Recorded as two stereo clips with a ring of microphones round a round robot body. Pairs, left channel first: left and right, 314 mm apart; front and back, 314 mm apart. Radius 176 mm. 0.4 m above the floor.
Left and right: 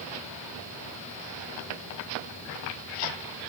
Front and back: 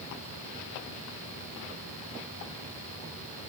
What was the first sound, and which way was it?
Only background noise.